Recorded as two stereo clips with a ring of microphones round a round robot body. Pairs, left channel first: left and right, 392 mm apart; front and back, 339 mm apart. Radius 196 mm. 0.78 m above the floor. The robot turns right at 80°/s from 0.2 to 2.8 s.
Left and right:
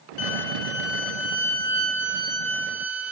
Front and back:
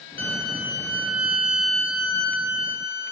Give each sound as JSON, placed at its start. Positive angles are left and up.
{"t": 0.2, "sound": "a violin", "azimuth_deg": 65, "distance_m": 2.5}